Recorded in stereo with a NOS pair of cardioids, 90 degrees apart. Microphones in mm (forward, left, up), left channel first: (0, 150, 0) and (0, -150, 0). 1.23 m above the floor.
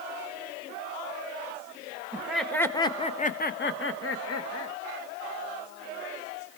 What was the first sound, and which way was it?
Laughter, 5° right.